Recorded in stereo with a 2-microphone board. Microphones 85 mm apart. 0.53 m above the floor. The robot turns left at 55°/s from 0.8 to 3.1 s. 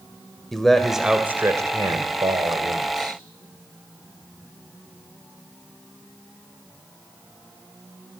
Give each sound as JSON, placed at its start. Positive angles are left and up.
{"t": 0.5, "sound": "a man speaking", "azimuth_deg": 5, "distance_m": 2.0}